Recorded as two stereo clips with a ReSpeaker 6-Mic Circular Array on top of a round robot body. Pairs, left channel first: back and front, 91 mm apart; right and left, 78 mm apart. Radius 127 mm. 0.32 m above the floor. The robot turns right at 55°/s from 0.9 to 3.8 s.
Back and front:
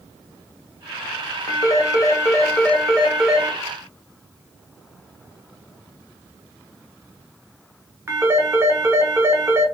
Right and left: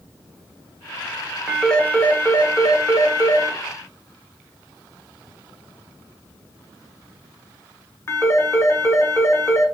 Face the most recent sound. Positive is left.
turn(degrees=-50)